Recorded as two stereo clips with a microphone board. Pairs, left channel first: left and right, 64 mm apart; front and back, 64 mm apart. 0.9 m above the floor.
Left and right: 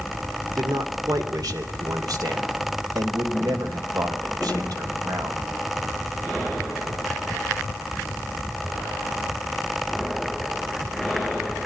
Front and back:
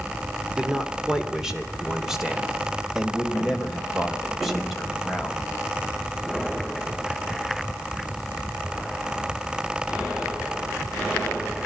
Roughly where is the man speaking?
Right.